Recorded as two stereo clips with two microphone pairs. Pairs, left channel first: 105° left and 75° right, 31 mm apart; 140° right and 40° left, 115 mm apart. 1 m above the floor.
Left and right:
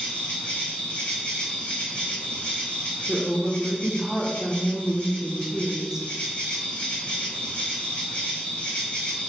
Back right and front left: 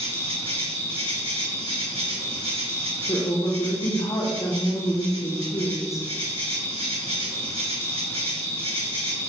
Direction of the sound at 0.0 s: 60° left.